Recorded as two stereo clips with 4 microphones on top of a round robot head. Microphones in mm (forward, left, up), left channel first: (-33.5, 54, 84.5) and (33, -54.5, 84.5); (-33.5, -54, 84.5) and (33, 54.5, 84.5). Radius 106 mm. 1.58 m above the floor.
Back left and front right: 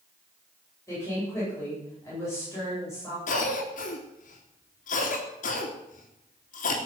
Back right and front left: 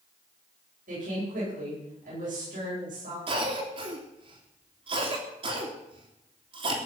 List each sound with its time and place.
0.9 s a woman speaking: 50° left, 10 m
3.3 s a cough: 100° left, 3 m